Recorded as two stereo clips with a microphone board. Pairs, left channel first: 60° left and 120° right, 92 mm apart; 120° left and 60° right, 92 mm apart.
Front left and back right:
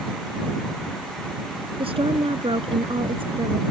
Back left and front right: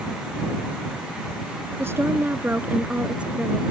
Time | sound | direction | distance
1.8 | a woman speaking | 120° right | ?